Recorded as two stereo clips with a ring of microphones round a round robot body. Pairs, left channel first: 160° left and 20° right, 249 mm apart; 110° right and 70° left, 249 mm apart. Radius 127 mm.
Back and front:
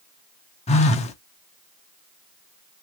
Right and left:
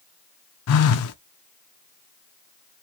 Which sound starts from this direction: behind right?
A phone buzzing, at 0.7 s.